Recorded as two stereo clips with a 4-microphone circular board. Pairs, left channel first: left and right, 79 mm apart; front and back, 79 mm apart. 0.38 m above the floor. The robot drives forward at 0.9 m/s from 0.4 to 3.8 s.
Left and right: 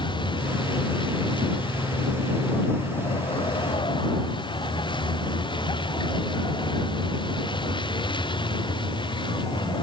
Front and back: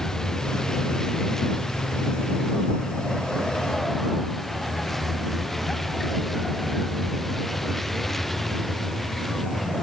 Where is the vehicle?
85° left; by 9.8 s 90° left.